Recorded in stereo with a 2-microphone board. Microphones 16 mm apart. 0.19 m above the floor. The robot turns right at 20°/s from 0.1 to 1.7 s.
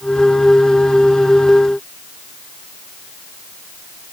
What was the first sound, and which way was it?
Only background noise.